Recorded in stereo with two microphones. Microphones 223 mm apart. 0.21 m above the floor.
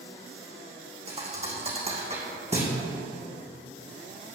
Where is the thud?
30° right (ahead or behind), 2.5 m.